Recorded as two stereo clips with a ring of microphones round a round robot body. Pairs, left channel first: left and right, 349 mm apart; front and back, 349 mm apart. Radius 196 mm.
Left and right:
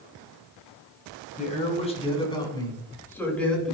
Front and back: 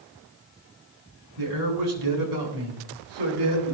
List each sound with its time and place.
1.4 s a man speaking: 160° left, 9 m; by 3.8 s straight behind, 8.5 m